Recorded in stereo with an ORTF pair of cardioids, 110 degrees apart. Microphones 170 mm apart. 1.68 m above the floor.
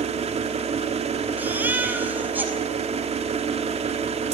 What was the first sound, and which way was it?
An engine running, 35° right.